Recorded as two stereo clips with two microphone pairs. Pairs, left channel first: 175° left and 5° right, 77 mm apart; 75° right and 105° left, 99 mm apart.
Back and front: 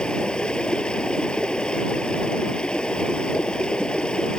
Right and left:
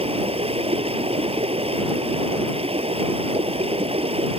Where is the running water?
100° left.